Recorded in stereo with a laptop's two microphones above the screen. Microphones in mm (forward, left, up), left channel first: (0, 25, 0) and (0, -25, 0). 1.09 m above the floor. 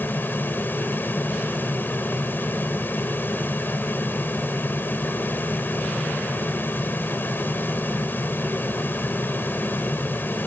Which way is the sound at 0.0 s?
45° left (ahead or behind).